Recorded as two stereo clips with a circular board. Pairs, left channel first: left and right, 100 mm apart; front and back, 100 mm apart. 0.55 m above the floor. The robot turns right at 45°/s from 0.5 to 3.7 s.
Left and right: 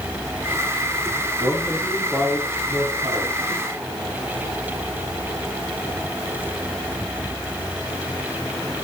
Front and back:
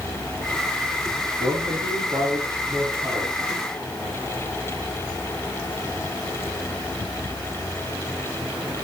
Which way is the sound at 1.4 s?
155° left.